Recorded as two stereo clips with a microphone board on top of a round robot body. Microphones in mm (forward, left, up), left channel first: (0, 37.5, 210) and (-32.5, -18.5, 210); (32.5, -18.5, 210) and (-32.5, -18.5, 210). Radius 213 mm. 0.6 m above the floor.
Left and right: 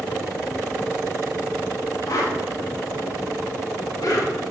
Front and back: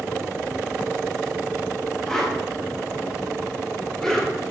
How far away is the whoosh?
About 5 m.